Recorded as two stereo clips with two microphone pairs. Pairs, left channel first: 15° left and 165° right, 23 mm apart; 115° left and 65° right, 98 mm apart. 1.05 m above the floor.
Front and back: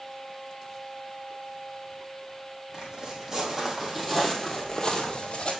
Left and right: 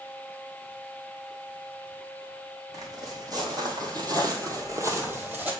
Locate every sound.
2.7 s footsteps: 115° right, 2 m; by 5.5 s 5° left, 1.4 m